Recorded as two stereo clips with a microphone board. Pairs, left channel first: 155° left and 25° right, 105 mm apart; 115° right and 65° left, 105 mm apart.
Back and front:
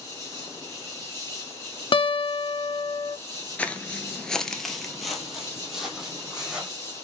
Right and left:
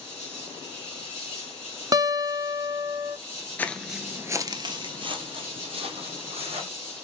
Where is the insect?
10° left, 2.5 m.